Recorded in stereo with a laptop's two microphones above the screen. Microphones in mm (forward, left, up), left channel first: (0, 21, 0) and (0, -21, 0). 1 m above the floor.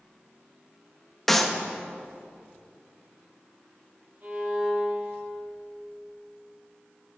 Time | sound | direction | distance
1.3 | a clap | 5° left (ahead or behind) | 1.0 m
4.2 | a violin | 40° right (ahead or behind) | 7 m